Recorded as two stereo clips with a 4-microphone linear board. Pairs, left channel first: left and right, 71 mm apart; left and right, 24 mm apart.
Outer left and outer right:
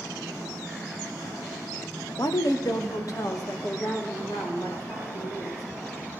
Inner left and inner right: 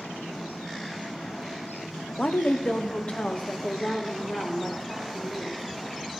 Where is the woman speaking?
70° left (ahead or behind), 0.6 m; by 5.6 s 55° left (ahead or behind), 4 m.